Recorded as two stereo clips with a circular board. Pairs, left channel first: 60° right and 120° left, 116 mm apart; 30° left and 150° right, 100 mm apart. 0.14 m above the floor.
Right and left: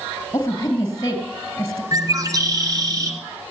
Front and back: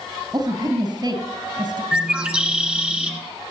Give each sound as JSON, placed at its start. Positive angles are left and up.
{"t": 0.3, "sound": "a woman speaking", "azimuth_deg": -120, "distance_m": 2.5}
{"t": 1.9, "sound": "a bird", "azimuth_deg": 140, "distance_m": 1.7}